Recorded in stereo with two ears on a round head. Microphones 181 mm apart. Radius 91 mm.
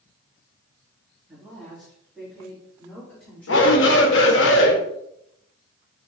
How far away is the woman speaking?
About 3 m.